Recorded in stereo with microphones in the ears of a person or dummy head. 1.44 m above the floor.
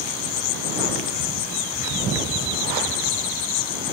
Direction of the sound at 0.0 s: 80° left.